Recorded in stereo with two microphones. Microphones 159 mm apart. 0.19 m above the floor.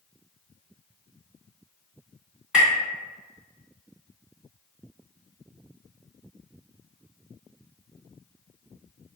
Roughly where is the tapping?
Centre.